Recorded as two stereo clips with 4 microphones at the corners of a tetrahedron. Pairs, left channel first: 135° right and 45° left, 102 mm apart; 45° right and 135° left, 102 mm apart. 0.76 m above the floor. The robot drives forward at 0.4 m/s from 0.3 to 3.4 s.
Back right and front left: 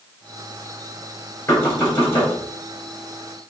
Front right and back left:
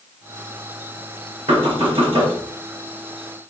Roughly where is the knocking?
Behind left.